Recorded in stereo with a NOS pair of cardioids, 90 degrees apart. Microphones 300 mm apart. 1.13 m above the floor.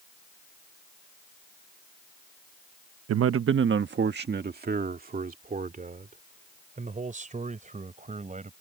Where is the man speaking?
55° right; by 8.5 s 25° right.